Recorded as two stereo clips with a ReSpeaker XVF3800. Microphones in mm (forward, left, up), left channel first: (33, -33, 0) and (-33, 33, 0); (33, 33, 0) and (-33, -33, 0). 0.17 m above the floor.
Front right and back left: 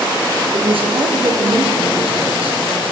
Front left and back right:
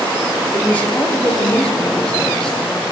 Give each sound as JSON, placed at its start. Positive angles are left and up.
{"t": 0.5, "sound": "a woman speaking", "azimuth_deg": 120, "distance_m": 5.0}